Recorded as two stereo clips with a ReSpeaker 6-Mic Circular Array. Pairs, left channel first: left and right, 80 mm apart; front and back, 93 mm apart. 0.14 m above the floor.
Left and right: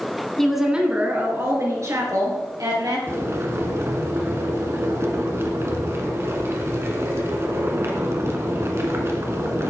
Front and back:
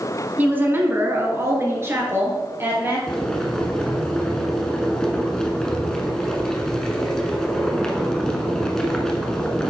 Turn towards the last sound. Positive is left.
turn(degrees=-80)